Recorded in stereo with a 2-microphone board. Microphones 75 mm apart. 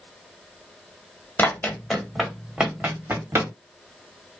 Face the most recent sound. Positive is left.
turn(degrees=-35)  # may be behind; listen again after turning